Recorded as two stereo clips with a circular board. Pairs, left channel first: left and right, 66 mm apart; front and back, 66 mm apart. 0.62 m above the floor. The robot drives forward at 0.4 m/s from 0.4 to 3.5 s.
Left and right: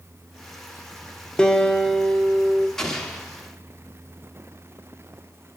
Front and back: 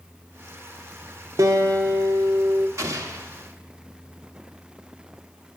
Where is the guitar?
165° left, 0.9 m; by 2.7 s 170° left, 1.4 m.